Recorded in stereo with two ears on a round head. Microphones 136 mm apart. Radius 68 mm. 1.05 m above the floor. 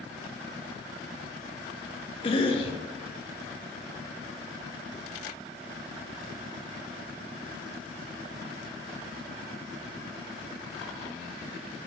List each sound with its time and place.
2.2 s a cough: 35° left (ahead or behind), 1.2 m